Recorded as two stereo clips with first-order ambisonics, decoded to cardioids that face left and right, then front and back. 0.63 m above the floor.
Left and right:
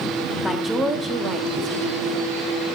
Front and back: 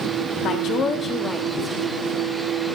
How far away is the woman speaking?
About 1.1 m.